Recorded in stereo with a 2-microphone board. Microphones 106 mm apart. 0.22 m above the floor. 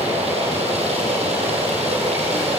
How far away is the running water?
About 6 m.